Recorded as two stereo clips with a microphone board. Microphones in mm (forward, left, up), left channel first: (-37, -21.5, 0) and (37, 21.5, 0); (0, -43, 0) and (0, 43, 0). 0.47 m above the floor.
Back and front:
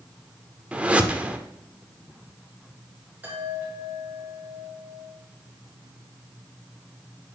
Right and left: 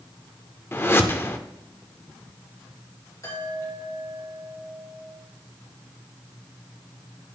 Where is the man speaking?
I don't hear a man speaking.